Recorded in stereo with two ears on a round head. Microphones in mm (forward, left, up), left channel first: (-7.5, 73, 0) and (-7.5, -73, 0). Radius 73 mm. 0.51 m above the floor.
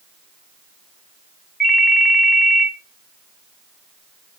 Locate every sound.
1.6 s a ringtone: centre (ahead or behind), 1.7 m